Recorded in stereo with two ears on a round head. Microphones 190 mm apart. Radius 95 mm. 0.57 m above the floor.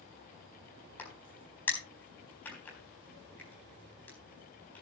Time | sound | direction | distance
1.0 | a crack | 10° left (ahead or behind) | 4 m